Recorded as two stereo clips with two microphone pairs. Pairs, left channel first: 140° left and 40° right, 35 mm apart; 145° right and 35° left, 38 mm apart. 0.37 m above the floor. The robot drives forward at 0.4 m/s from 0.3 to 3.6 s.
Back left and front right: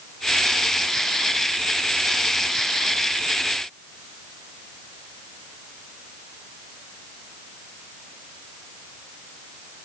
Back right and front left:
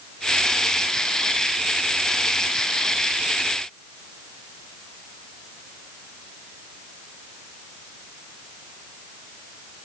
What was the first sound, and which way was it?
Only background noise.